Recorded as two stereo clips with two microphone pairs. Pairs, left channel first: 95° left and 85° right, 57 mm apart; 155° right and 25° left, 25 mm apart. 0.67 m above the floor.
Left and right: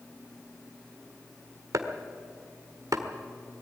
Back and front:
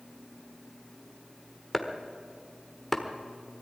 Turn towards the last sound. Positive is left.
turn(degrees=-75)